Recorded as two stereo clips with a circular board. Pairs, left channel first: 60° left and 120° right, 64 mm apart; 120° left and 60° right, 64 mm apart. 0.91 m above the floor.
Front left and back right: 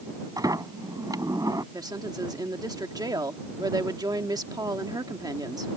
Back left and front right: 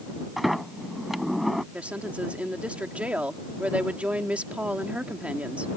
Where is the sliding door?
145° right.